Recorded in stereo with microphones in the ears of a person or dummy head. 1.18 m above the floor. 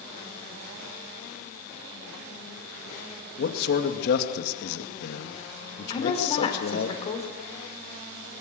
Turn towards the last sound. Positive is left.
turn(degrees=35)  # may be behind; listen again after turning